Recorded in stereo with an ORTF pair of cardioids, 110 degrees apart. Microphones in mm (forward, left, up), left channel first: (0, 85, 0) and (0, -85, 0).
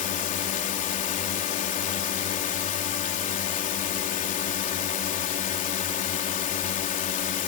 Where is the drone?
50° left.